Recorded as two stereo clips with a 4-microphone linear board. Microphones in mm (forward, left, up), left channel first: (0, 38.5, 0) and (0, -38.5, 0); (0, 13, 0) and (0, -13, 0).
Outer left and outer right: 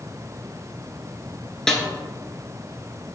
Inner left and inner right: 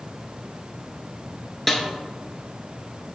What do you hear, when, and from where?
1.7 s a snare drum: 5° left (ahead or behind), 0.7 m